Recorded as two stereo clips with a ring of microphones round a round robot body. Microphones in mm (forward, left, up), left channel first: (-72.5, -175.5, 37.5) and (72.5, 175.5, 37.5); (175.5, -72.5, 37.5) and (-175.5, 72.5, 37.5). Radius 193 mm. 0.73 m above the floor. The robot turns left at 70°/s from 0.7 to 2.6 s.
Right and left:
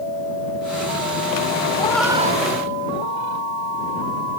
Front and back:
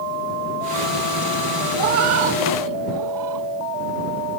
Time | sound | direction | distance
1.8 | a cat meowing | 175° left | ?